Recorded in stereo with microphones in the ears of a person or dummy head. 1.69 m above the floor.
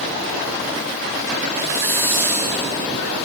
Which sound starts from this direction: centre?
A hiss, at 1.6 s.